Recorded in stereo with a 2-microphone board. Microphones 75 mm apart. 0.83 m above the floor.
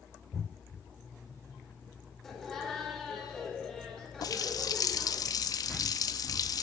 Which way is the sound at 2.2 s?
5° left (ahead or behind).